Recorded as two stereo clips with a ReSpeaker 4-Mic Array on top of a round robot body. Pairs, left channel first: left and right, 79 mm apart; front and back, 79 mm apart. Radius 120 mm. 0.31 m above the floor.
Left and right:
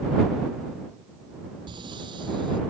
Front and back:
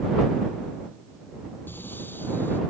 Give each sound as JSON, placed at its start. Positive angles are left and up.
{"t": 1.7, "sound": "breathing", "azimuth_deg": -65}